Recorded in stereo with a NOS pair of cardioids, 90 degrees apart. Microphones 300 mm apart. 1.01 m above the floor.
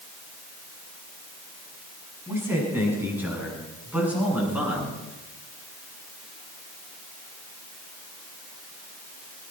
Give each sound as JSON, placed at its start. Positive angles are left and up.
{"t": 2.3, "sound": "a man speaking", "azimuth_deg": -5, "distance_m": 7.5}